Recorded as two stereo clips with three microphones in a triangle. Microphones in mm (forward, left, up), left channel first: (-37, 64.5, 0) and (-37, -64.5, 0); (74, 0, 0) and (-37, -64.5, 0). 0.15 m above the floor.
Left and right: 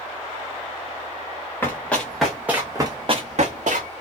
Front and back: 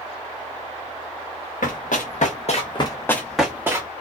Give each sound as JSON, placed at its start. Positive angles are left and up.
{"t": 1.6, "sound": "running footsteps", "azimuth_deg": 15, "distance_m": 1.1}